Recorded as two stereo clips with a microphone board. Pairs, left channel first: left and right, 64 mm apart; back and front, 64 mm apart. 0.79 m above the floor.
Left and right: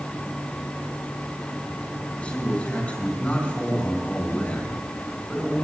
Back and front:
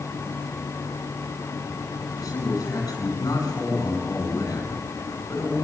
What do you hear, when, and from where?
2.2 s a man speaking: 160° left, 9.5 m